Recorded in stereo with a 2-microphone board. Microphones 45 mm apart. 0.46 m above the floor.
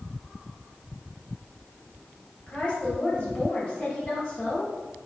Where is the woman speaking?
35° left (ahead or behind), 2.5 m.